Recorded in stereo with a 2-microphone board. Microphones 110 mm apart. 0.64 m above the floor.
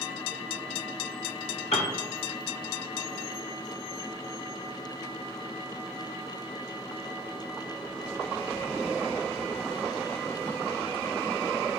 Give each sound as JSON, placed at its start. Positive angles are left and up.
{"t": 1.7, "sound": "a piano", "side_deg": 70, "distance_m": 1.0}